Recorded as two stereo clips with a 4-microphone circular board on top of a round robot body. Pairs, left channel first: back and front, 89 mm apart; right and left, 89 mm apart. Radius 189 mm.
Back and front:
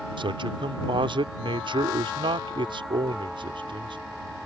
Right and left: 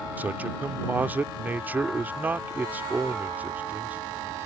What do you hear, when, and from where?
0.2 s a man speaking: 20° left